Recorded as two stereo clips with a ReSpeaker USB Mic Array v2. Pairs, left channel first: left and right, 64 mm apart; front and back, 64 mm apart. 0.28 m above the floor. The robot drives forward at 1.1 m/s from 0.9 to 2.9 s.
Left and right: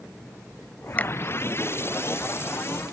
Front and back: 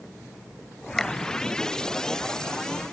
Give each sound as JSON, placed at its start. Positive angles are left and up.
{"t": 1.0, "sound": "a finger snap", "azimuth_deg": 75}